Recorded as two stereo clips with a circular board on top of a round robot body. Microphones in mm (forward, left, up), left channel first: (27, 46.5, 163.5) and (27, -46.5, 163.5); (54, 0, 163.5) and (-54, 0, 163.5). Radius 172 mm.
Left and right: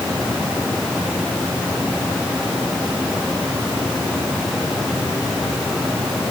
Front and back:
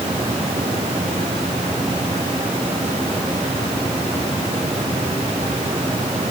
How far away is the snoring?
No snoring in this recording.